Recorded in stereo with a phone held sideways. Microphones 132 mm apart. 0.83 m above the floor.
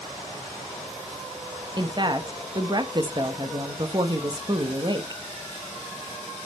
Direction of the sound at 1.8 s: 35° right (ahead or behind).